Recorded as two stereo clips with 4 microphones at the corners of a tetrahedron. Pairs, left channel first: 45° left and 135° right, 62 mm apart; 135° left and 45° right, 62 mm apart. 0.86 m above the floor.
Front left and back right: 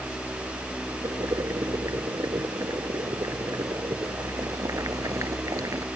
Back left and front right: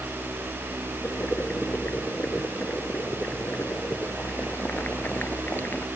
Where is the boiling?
165° right.